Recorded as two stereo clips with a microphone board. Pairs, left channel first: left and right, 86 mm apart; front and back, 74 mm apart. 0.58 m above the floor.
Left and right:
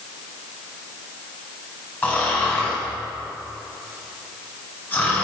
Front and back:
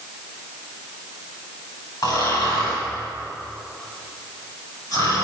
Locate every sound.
2.0 s snoring: 25° left, 4.5 m